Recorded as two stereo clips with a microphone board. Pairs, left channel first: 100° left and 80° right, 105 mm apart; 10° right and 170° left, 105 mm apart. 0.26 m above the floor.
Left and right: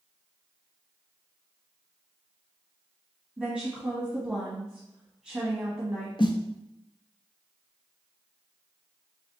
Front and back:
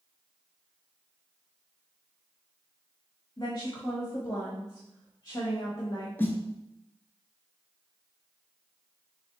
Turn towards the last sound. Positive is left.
turn(degrees=55)